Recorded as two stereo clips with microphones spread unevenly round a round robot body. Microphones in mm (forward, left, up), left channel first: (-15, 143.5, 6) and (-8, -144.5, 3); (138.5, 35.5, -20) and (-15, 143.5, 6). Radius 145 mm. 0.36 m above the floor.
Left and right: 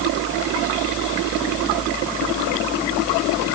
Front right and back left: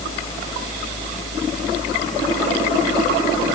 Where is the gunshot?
I don't hear a gunshot.